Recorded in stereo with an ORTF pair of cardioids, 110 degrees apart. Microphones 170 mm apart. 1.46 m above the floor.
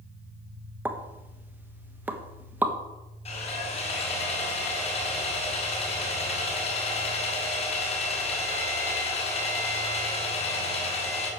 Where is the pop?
10° right, 1.3 m.